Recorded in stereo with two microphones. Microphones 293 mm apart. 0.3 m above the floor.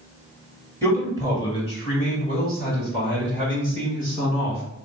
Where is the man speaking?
5° left (ahead or behind), 1.3 m; by 4.6 s 40° left (ahead or behind), 2 m.